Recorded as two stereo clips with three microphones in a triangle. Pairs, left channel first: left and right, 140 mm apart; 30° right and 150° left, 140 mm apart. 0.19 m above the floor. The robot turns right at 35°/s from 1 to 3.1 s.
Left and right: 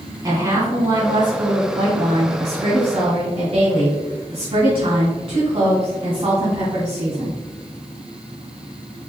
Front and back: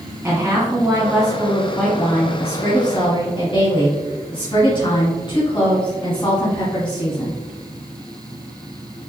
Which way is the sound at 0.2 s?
140° right.